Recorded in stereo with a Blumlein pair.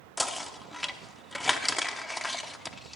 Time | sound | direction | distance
0.2 | knocking | 5° left | 0.8 m